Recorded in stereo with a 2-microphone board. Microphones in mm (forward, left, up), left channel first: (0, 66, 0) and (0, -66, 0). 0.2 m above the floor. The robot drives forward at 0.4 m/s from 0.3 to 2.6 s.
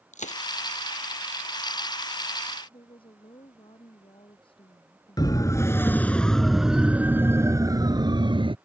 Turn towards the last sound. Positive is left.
turn(degrees=-40)  # may be behind; listen again after turning